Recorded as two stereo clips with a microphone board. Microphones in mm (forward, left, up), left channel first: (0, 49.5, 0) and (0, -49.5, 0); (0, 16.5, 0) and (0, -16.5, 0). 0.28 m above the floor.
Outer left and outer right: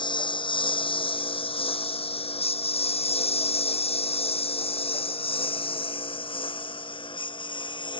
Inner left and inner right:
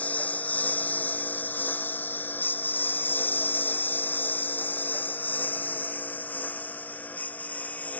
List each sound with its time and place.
0.0 s a lawn mower: 50° left (ahead or behind); by 8.0 s 55° left (ahead or behind)